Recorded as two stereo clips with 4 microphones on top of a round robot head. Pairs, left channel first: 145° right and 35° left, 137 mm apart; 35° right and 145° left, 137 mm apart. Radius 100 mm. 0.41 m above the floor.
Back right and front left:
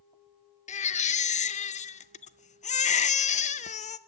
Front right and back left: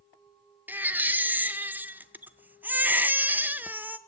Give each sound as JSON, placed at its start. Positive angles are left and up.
{"t": 0.7, "sound": "a baby crying", "azimuth_deg": -140, "distance_m": 0.5}